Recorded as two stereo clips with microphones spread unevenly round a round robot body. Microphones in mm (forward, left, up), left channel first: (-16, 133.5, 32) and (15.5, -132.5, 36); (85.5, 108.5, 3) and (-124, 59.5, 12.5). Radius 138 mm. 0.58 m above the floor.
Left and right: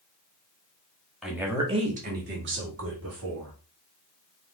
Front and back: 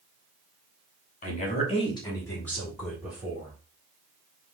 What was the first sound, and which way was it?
A woman speaking, 5° left.